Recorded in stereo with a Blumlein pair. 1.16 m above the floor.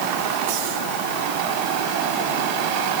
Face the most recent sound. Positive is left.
No sound to turn to.